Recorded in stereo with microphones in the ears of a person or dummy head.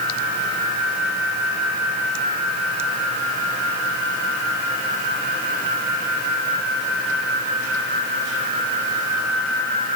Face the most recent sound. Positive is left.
No sound to turn to.